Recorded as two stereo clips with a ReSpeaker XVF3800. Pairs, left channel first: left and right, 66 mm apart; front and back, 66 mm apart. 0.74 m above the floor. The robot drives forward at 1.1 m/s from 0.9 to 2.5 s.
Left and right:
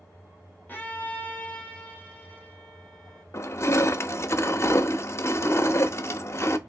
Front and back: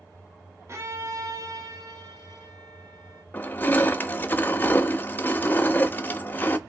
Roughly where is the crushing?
Ahead left.